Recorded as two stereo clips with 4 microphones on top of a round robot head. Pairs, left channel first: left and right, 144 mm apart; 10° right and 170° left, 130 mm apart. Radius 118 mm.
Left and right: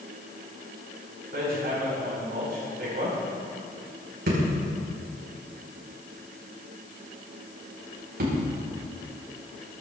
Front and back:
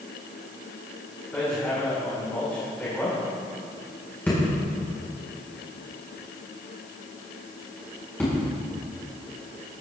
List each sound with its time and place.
1.3 s hammering: 90° right, 6 m